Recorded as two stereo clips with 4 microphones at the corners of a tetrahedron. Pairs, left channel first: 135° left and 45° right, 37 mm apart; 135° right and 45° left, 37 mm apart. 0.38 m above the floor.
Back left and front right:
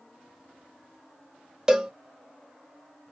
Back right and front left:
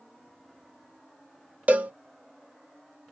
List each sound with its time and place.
1.7 s a cowbell: 20° left, 0.6 m